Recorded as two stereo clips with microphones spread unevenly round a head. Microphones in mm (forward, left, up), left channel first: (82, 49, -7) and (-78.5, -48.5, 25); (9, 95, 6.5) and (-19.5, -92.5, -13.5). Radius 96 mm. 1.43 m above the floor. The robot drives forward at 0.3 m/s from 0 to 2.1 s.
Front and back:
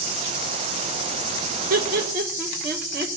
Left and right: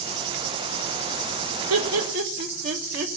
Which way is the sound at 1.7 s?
100° right.